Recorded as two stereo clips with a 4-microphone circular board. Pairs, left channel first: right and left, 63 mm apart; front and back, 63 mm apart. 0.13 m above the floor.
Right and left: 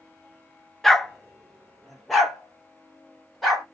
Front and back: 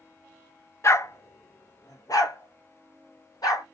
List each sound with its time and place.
0.8 s a dog barking: 5° right, 0.5 m; by 3.6 s straight ahead, 1.9 m